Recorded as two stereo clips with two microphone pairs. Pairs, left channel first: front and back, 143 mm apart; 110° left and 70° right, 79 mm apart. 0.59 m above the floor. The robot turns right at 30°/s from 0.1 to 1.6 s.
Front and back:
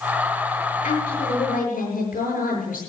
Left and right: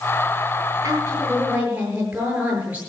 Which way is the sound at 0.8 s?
20° right.